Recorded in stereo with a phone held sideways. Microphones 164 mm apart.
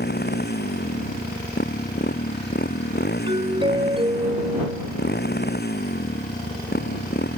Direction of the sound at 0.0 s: 80° left.